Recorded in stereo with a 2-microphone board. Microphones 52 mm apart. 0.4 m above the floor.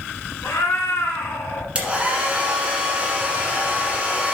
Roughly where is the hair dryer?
Right.